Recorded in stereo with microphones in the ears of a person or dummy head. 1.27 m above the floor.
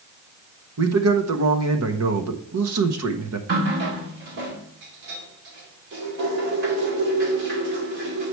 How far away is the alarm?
I don't hear an alarm.